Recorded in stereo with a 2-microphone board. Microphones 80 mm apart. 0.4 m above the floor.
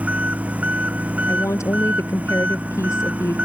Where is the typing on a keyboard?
I don't hear typing on a keyboard.